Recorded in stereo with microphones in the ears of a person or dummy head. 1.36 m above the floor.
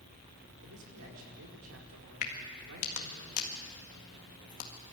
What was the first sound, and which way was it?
A man speaking, 80° right.